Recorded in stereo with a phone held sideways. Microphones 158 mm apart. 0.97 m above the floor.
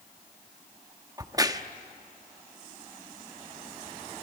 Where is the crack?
25° right (ahead or behind), 0.9 m.